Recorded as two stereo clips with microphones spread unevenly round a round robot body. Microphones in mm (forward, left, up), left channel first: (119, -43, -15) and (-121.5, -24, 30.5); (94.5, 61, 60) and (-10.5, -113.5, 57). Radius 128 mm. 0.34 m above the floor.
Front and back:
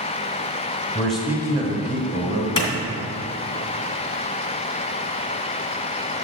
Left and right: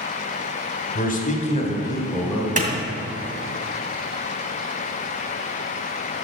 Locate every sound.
0.9 s a man speaking: 65° left, 1.6 m; by 2.5 s 145° left, 1.7 m
2.6 s a clap: 70° right, 2.5 m